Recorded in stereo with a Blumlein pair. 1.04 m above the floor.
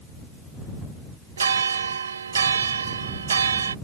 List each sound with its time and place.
1.4 s a bell: 70° right